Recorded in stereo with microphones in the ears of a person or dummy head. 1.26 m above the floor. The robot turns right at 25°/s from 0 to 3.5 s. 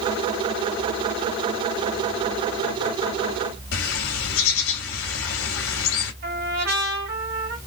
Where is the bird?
80° left, 1.5 m.